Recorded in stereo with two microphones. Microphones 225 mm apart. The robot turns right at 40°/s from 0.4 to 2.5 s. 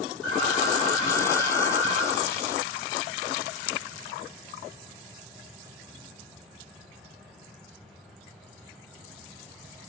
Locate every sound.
0.2 s an alarm: 95° right, 7 m; by 2.0 s 30° right, 7 m